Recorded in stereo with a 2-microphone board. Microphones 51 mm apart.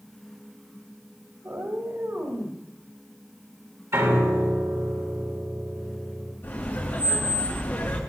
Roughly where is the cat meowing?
Right.